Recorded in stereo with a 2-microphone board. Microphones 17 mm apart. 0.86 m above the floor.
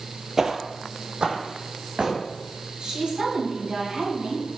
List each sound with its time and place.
0.4 s footsteps: 20° right (ahead or behind), 0.9 m; by 2.2 s 75° right (ahead or behind), 2.5 m
2.8 s a woman speaking: 55° right (ahead or behind), 4.5 m